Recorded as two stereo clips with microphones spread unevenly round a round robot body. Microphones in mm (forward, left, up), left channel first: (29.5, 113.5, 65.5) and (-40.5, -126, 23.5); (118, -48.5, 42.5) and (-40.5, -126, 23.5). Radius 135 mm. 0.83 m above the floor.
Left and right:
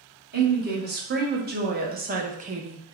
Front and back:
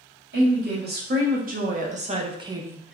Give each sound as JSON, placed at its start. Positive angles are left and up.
{"t": 0.3, "sound": "a woman speaking", "azimuth_deg": -150, "distance_m": 1.6}